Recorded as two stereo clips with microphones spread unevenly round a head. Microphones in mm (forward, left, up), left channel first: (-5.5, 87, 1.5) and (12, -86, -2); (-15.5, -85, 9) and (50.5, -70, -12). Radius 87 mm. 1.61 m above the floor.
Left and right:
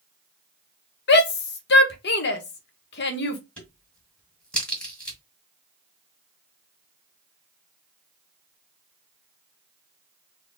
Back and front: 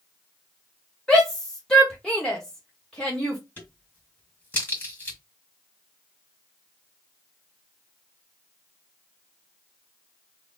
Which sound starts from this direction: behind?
A crack, at 3.6 s.